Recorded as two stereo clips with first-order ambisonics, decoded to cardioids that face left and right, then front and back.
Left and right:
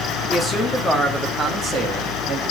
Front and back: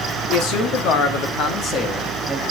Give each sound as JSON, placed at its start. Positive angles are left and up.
{"t": 0.3, "sound": "a man speaking", "azimuth_deg": 10, "distance_m": 1.5}